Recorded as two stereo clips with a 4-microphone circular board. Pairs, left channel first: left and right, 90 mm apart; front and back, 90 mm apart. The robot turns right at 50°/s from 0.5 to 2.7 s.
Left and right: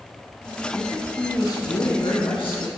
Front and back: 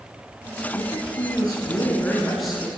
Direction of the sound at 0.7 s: 5° left.